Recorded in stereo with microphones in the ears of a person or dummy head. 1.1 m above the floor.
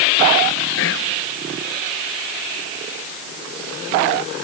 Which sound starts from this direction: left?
Whispering, at 0.8 s.